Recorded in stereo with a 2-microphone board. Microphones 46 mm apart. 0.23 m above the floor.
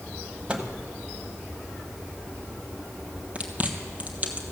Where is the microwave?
25° right (ahead or behind), 1.0 m.